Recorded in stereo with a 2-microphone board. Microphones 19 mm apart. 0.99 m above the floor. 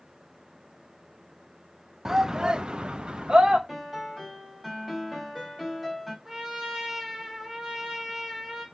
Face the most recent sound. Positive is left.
turn(degrees=-25)  # may be behind; listen again after turning